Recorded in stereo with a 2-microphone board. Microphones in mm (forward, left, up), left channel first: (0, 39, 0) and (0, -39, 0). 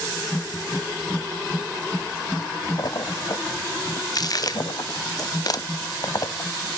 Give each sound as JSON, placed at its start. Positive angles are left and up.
{"t": 2.8, "sound": "a splash", "side_deg": 50, "distance_m": 0.7}